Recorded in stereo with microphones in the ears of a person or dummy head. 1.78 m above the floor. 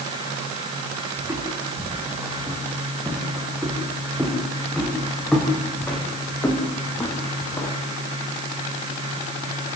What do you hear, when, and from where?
1.2 s footsteps: 10° right (ahead or behind), 7 m; by 7.8 s 25° left (ahead or behind), 3.5 m